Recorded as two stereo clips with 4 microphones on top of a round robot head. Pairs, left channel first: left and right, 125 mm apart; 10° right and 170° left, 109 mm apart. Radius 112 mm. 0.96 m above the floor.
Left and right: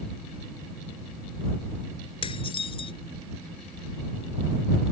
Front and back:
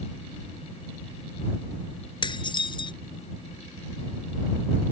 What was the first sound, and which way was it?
Dishes clattering, 35° left.